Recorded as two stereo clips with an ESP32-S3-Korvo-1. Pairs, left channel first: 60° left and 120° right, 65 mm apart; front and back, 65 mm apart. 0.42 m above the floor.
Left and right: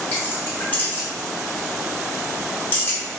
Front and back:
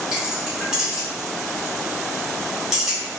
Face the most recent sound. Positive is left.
turn(degrees=105)